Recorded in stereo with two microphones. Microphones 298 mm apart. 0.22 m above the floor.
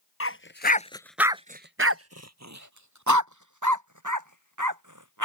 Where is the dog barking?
50° left (ahead or behind); by 5.2 s 85° right.